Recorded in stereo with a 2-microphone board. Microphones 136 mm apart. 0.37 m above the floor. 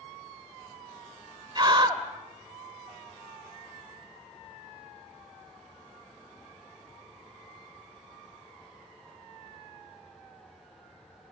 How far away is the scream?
About 1.8 m.